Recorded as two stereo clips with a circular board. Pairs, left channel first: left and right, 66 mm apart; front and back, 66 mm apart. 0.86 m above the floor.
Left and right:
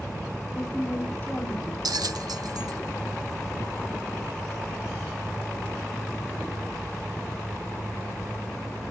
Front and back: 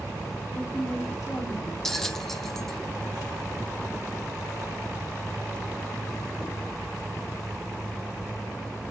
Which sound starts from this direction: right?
A bell, at 1.9 s.